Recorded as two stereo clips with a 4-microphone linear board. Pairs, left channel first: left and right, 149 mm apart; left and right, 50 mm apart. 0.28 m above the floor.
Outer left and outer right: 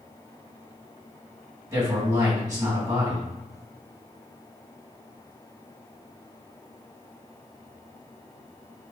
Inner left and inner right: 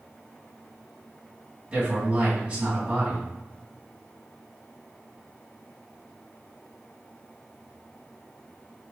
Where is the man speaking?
20° right (ahead or behind), 2.0 m.